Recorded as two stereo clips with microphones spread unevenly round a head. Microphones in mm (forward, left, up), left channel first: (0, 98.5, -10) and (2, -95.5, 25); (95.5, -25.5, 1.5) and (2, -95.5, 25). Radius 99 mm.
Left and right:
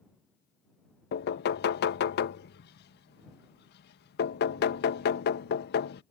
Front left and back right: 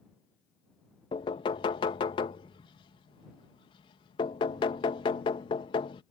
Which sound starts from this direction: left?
Knocking, at 1.1 s.